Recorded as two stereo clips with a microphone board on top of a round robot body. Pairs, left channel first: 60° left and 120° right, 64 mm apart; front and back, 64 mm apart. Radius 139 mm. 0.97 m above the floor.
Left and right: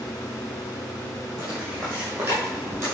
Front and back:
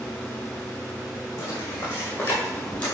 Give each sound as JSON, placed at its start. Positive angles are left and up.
{"t": 1.4, "sound": "footsteps", "azimuth_deg": -40, "distance_m": 3.0}